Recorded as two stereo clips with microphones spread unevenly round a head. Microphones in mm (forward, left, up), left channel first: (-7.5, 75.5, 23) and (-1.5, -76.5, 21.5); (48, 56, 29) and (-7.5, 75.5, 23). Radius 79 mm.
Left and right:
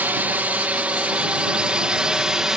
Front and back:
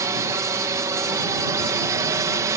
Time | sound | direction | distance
0.0 | a drone | 165° right | ?